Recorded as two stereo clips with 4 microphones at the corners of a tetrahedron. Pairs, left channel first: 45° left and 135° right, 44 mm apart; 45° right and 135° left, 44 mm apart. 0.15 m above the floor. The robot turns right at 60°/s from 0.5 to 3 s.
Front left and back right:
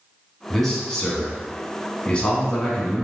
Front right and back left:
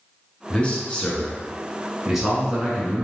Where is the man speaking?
45° right, 1.2 m; by 3.0 s 105° left, 1.2 m.